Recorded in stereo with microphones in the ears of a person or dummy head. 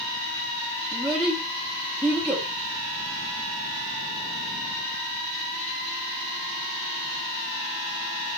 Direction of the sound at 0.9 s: Centre (ahead or behind).